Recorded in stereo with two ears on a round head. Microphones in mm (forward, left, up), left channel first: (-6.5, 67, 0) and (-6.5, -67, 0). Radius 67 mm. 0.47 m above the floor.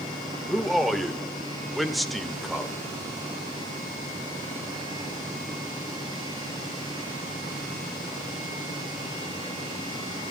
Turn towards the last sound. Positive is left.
turn(degrees=0)  # may be behind; listen again after turning